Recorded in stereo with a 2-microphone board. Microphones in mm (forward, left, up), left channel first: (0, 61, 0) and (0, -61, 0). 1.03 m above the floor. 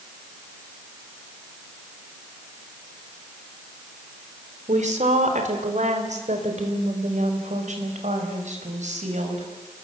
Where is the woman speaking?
75° right (ahead or behind), 3.5 m.